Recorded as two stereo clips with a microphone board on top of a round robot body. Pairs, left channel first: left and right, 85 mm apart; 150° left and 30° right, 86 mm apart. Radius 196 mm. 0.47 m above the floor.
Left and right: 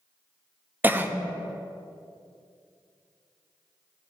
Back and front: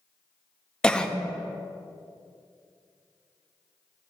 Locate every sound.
0.8 s a cough: 140° right, 0.7 m